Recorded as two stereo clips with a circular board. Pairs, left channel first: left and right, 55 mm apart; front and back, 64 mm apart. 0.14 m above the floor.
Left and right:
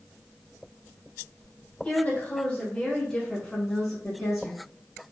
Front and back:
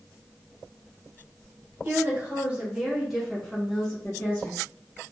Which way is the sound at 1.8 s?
135° left.